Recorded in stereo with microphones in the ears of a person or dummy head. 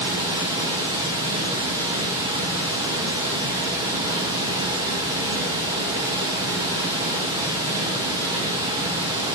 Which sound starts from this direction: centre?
Running water, at 0.0 s.